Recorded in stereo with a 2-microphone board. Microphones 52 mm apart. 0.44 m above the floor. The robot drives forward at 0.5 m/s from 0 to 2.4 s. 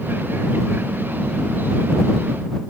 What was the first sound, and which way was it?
Only background noise.